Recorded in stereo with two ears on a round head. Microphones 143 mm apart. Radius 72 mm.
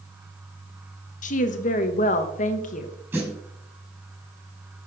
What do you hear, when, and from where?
1.2 s a woman speaking: 50° left (ahead or behind), 1.1 m
3.1 s a snare drum: 15° right (ahead or behind), 5 m